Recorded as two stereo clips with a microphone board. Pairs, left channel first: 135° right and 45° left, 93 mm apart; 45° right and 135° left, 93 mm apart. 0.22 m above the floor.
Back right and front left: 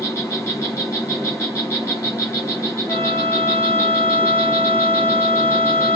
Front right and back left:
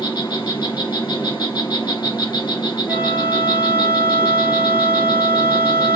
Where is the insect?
75° right, 3 m.